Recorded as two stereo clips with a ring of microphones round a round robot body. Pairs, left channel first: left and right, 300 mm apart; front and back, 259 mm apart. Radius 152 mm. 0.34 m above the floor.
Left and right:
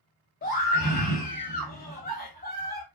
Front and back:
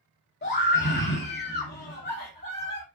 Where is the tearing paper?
I don't hear tearing paper.